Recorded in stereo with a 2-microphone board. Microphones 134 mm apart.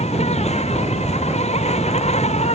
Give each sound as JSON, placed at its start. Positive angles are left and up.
{"t": 0.0, "sound": "an insect", "side_deg": 55}